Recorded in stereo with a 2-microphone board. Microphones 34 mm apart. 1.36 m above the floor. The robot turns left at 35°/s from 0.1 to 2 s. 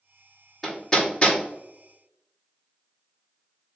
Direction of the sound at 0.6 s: 10° left (ahead or behind).